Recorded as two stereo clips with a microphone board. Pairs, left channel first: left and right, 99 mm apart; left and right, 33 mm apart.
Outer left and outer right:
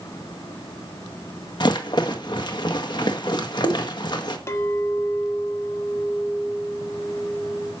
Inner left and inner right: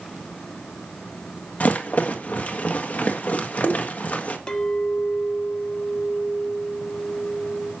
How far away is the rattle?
About 1.5 m.